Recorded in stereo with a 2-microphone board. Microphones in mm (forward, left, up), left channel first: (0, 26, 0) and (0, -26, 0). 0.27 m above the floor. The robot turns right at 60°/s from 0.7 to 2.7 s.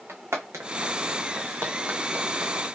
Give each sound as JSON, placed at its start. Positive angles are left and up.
{"t": 0.1, "sound": "footsteps", "side_deg": -60, "distance_m": 1.4}